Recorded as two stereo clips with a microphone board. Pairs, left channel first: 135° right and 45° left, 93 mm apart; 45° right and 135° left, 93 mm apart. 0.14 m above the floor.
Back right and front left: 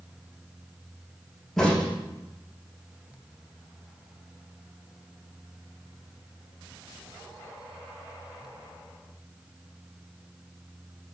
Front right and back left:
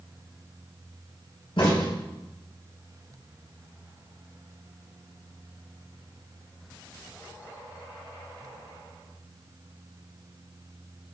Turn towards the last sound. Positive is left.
turn(degrees=-45)